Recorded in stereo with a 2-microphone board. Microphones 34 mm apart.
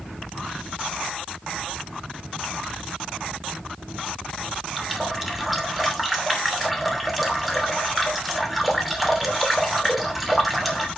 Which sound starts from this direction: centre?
A running tap, at 4.8 s.